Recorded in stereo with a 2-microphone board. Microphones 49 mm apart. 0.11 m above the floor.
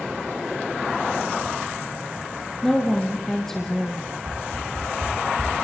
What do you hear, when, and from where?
2.6 s a woman speaking: 5° left (ahead or behind), 3.5 m
4.2 s a whoosh: 85° right, 8.5 m